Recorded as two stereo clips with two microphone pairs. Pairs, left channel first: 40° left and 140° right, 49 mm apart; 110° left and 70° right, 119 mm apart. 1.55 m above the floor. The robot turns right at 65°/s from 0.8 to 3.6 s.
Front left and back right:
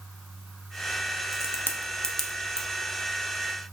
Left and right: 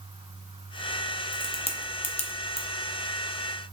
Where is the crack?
60° left, 0.5 m; by 2.7 s 150° left, 0.5 m.